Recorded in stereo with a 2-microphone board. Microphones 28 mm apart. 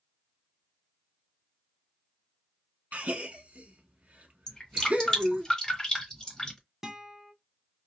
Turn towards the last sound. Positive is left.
turn(degrees=-20)  # may be behind; listen again after turning